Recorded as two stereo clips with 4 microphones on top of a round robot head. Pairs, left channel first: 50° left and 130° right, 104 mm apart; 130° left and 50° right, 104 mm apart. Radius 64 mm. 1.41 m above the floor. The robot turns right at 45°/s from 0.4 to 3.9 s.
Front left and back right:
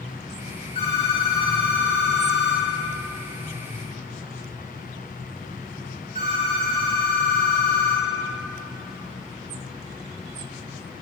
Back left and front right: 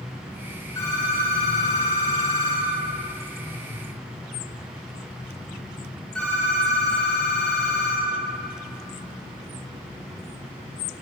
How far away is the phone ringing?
About 3 m.